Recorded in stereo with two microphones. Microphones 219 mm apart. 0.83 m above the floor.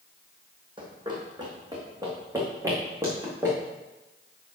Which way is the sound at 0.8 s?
20° right (ahead or behind).